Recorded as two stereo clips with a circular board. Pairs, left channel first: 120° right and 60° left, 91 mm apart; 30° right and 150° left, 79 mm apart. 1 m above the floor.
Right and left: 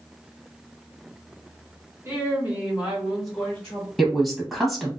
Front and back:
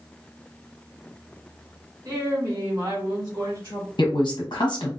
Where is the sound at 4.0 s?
30° right, 0.7 m.